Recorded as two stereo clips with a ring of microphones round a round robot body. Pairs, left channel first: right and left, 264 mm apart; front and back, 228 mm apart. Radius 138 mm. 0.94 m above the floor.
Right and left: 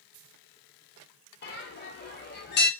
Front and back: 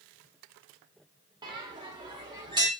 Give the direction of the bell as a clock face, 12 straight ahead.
4 o'clock.